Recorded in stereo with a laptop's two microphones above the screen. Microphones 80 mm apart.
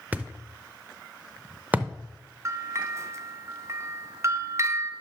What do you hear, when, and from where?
0.1 s a thud: 20° right (ahead or behind), 0.7 m
2.5 s a bell: 35° right (ahead or behind), 0.5 m